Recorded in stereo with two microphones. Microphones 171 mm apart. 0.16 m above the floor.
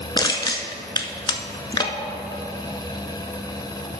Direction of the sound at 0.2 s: 25° left (ahead or behind).